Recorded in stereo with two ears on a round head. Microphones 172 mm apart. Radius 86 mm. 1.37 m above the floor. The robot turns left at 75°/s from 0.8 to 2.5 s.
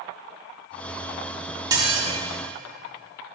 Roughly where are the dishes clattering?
Right.